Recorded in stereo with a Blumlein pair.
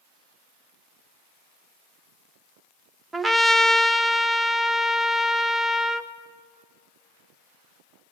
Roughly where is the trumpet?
Ahead.